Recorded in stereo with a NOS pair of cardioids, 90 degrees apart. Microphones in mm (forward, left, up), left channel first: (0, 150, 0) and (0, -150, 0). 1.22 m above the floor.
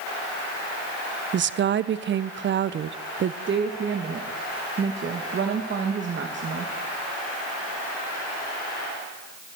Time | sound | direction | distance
1.3 | a woman speaking | 40° right | 0.5 m
3.5 | a woman speaking | 40° right | 1.1 m